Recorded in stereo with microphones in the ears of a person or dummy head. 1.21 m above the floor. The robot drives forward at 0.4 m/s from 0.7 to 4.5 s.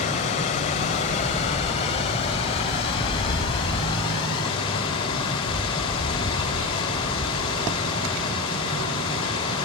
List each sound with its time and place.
0.0 s running water: 40° left (ahead or behind), 3 m; by 9.7 s 25° left (ahead or behind), 4 m